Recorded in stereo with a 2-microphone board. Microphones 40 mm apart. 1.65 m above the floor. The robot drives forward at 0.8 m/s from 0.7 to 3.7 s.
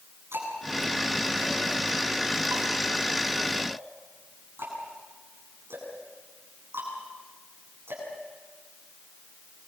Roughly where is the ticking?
Right.